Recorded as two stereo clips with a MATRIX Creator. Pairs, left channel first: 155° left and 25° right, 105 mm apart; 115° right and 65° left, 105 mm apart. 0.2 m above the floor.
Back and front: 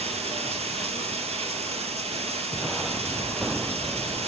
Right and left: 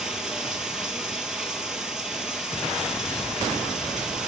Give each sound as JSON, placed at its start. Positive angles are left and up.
{"t": 0.0, "sound": "running water", "azimuth_deg": -15, "distance_m": 1.5}